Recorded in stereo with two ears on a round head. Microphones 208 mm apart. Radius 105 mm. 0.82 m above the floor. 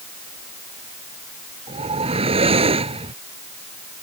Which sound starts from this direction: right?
A whoosh, at 1.7 s.